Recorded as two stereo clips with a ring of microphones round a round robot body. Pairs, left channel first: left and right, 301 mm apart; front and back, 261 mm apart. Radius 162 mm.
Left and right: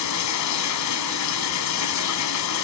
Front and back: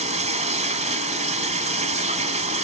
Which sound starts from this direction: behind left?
Running water, at 0.0 s.